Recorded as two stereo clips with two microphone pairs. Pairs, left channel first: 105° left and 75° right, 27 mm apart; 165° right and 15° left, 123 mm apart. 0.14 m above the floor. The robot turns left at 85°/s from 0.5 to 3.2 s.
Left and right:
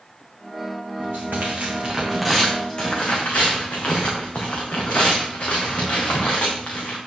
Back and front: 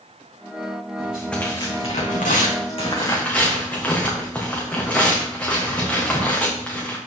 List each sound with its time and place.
1.0 s tearing paper: 55° right, 3 m; by 7.0 s 120° left, 3 m